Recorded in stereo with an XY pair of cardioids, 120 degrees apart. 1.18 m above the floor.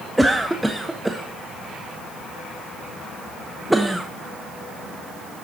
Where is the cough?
5° right, 0.8 m.